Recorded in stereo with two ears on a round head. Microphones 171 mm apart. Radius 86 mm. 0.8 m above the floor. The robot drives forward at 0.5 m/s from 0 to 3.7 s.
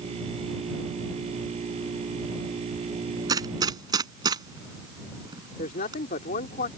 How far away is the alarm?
No alarm in this recording.